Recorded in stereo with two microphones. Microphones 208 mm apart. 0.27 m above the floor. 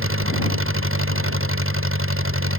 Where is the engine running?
85° right.